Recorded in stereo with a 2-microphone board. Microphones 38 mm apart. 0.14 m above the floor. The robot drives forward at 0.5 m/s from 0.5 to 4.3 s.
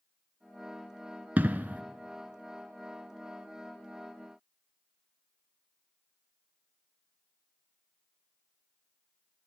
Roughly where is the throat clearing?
No throat clearing in this recording.